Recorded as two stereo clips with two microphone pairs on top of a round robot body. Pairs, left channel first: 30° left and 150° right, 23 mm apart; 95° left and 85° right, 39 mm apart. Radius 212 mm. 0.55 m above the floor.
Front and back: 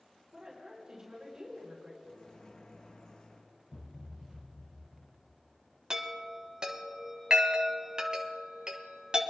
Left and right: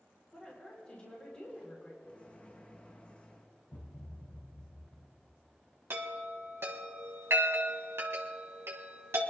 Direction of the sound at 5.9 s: 95° right.